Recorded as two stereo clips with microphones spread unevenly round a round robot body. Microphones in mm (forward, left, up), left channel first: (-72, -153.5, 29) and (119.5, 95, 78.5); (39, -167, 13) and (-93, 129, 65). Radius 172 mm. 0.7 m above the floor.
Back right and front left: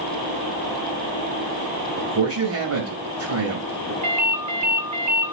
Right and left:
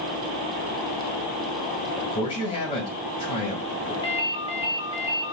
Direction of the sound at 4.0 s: 10° left.